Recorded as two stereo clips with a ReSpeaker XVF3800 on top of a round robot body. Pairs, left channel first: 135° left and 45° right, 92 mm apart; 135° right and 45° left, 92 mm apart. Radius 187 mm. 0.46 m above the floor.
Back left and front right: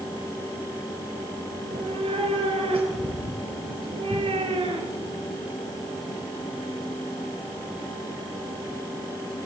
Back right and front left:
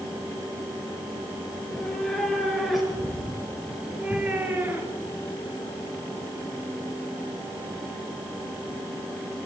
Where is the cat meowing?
50° right, 5 m; by 5.2 s 20° right, 3.5 m.